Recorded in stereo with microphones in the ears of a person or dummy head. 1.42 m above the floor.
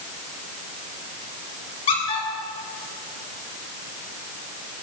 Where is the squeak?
30° left (ahead or behind), 4.5 m.